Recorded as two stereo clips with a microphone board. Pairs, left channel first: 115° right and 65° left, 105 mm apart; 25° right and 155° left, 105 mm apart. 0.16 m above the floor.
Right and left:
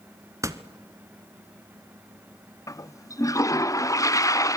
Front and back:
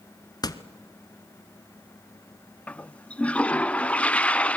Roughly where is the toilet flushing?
Right.